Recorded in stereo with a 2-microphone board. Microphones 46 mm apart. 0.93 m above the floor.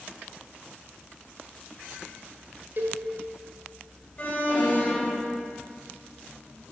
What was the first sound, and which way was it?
A cowbell, 50° right (ahead or behind).